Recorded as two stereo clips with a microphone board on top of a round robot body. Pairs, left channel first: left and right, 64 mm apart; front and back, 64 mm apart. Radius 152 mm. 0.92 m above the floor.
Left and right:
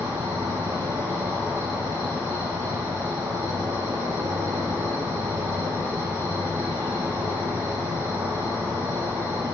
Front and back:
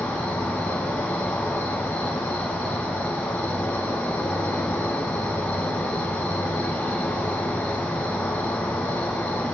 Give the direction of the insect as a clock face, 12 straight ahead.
2 o'clock.